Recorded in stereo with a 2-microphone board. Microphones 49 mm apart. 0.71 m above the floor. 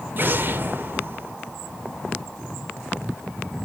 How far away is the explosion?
About 2 m.